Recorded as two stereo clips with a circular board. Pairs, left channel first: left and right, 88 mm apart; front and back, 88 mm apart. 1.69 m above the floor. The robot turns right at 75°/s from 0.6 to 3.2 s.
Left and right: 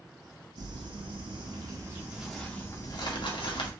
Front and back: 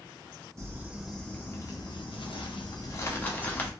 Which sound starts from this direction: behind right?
Crumpling, at 0.6 s.